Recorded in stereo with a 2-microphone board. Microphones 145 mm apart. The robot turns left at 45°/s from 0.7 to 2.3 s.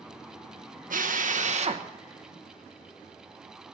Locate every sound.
0.9 s a drill: 90° right, 1.1 m; by 1.9 s 135° right, 1.1 m